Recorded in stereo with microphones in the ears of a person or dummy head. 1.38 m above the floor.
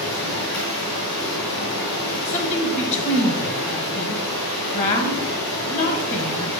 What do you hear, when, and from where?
0.0 s running water: 85° left, 4 m
2.2 s a woman speaking: 35° left (ahead or behind), 1.1 m